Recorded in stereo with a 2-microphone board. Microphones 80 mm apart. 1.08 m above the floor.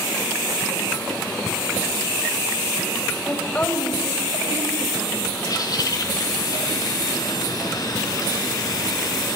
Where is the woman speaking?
20° left (ahead or behind), 5.5 m.